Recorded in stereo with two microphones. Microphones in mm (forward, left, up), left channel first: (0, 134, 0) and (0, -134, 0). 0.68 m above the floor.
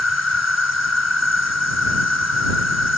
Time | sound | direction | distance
0.0 | an insect | 70° left (ahead or behind) | ?